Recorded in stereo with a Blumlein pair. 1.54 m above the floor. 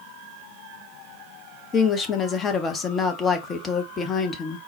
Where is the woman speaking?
20° left, 0.7 m.